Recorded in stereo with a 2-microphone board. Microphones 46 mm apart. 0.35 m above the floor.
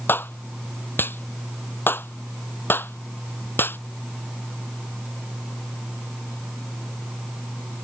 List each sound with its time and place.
0.1 s a clap: 50° left (ahead or behind)